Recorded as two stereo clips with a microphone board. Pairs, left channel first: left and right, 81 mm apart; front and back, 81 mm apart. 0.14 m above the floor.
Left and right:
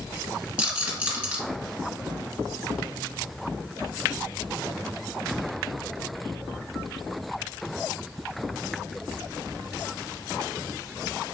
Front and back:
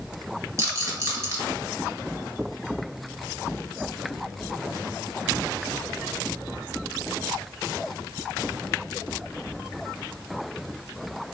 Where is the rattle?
160° right, 1.8 m.